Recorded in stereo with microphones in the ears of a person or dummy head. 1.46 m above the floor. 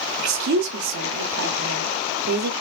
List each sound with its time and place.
0.2 s a woman speaking: 60° right (ahead or behind), 1.2 m